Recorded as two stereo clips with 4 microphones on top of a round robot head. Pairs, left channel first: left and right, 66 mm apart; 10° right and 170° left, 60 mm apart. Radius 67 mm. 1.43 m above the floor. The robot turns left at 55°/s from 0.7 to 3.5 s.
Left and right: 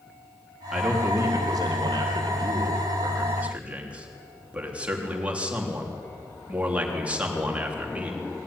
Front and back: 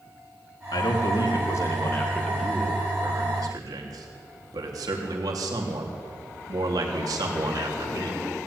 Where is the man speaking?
10° right, 3.5 m; by 8.2 s 165° right, 3.5 m.